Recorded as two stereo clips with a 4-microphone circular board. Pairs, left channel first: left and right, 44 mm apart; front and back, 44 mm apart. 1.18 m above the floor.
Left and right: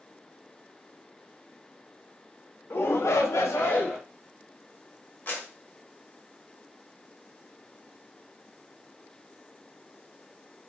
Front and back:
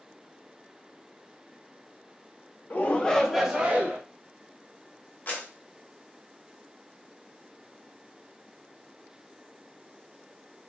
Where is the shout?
50° left, 0.7 m; by 4.0 s 125° left, 0.9 m.